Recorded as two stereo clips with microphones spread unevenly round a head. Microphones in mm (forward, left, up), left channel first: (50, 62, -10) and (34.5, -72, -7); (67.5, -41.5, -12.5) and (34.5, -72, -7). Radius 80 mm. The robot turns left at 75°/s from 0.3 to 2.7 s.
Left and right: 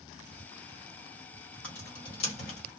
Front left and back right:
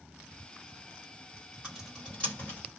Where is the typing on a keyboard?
165° left, 1.4 m; by 2.6 s 95° left, 1.4 m.